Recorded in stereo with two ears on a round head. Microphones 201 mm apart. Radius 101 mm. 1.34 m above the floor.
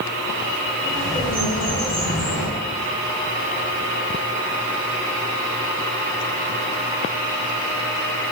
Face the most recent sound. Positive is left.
turn(degrees=5)  # may be behind; listen again after turning